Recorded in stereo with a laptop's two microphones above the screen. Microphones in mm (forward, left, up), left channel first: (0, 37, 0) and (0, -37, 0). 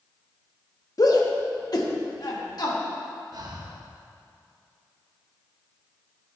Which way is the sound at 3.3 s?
60° right (ahead or behind).